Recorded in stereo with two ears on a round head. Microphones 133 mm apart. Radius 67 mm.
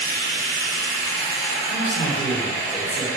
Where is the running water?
70° right (ahead or behind), 0.8 m.